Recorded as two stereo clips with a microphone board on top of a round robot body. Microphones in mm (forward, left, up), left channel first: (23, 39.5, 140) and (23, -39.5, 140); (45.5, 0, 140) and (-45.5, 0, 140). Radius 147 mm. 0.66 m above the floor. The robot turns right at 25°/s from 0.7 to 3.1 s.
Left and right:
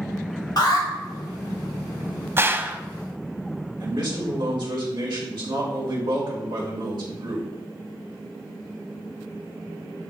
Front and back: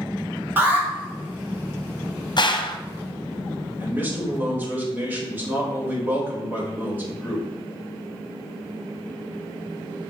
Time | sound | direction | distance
0.6 | an alarm | 115° left | 2.5 m
2.4 | a gunshot | 35° right | 0.8 m
3.8 | a man speaking | 110° right | 4 m